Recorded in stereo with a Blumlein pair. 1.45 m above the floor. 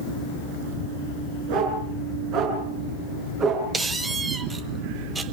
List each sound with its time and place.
1.5 s a dog barking: 45° right, 7 m; by 3.7 s 25° right, 6 m
3.7 s a squeak: 10° right, 1.4 m